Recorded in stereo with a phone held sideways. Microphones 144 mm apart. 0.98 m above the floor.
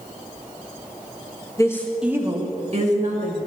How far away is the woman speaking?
About 1.2 m.